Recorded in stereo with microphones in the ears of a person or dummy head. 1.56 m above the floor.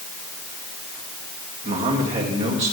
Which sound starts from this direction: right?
A man speaking, at 1.6 s.